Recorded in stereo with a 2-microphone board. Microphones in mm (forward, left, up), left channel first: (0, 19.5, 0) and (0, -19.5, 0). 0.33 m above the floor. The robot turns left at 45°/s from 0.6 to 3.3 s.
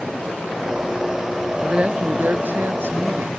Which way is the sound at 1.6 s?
20° right.